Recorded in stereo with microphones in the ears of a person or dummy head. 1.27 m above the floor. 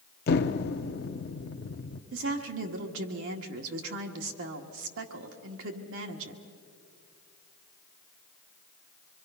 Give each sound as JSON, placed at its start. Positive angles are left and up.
{"t": 0.3, "sound": "an explosion", "side_deg": 55, "distance_m": 0.8}
{"t": 2.1, "sound": "a woman speaking", "side_deg": -75, "distance_m": 1.8}